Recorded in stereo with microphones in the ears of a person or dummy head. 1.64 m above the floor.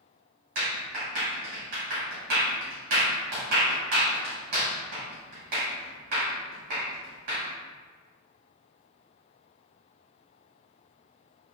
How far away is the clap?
About 2.0 m.